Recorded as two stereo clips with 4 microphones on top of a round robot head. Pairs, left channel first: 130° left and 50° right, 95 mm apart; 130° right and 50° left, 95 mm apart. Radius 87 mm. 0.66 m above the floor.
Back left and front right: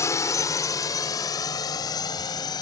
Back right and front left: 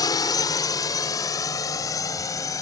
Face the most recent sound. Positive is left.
turn(degrees=175)